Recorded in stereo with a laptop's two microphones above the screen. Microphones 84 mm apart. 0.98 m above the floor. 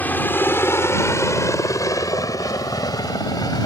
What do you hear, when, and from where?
0.0 s a helicopter: 20° left (ahead or behind); by 3.7 s 50° left (ahead or behind)